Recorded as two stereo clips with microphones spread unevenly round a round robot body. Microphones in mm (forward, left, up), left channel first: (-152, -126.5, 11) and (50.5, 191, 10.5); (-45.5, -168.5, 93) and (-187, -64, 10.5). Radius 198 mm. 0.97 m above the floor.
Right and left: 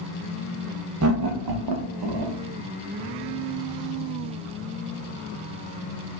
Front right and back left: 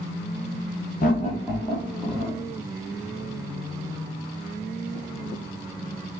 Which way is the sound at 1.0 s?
25° left.